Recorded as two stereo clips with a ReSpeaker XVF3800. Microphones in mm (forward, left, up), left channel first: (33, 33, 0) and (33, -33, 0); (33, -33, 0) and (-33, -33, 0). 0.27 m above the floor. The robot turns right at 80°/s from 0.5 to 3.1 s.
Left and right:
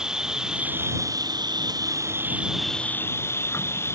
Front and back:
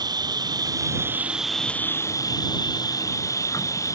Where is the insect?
170° right; by 4.0 s 40° left.